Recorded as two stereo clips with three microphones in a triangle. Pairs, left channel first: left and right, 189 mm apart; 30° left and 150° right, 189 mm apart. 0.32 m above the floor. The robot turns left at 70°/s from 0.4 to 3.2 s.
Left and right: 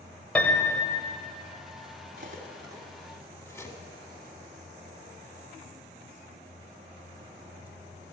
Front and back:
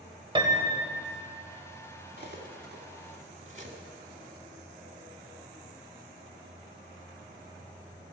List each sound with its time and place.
0.3 s a piano: 170° left, 1.4 m; by 1.1 s 120° left, 1.4 m
2.2 s cutlery clinking: 120° right, 1.4 m; by 3.8 s 165° left, 1.4 m